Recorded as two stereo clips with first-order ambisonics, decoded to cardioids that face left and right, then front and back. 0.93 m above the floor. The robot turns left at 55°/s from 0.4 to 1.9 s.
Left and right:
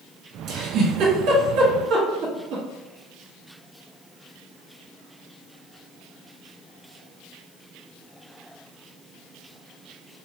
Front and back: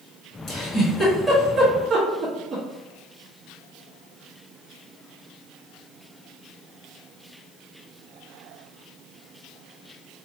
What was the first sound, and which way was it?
A giggle, 45° right.